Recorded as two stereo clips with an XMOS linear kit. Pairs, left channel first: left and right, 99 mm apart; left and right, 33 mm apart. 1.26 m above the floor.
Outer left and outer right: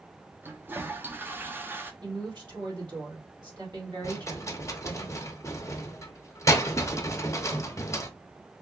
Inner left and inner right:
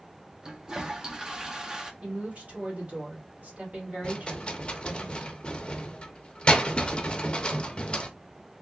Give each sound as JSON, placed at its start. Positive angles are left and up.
{"t": 0.4, "sound": "a toilet flushing", "side_deg": -20, "distance_m": 0.5}
{"t": 2.0, "sound": "a woman speaking", "side_deg": -50, "distance_m": 2.0}
{"t": 4.0, "sound": "a rattle", "side_deg": 30, "distance_m": 0.6}